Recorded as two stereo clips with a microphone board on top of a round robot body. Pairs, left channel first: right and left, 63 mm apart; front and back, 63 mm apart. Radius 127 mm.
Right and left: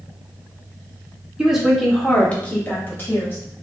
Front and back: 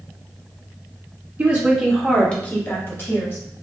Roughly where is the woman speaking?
Behind left.